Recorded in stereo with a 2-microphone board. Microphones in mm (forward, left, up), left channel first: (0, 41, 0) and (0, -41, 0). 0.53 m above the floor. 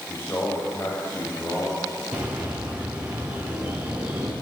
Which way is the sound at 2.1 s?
20° right (ahead or behind).